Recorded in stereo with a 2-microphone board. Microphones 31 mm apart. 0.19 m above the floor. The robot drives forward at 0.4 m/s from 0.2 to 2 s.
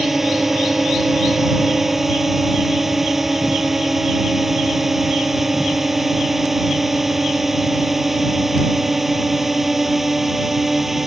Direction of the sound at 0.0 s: 10° right (ahead or behind).